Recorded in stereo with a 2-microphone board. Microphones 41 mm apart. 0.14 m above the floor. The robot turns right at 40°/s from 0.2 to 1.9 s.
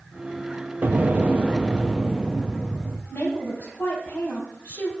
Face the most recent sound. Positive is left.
turn(degrees=60)  # may be behind; listen again after turning